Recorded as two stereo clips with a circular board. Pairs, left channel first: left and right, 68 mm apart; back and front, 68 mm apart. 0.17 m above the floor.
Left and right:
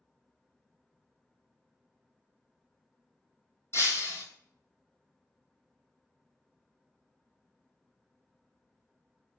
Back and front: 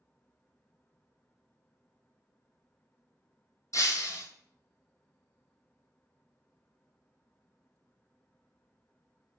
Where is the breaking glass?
140° left, 0.8 m.